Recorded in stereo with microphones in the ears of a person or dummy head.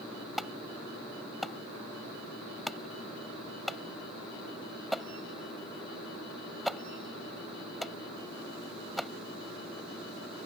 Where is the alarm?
Centre (ahead or behind).